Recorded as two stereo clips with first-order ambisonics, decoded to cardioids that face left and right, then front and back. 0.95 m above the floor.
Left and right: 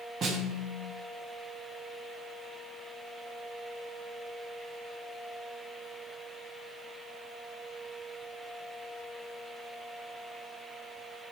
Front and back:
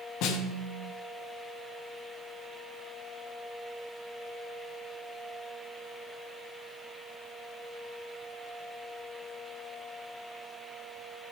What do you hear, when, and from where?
0.2 s a snare drum: 30° right, 1.1 m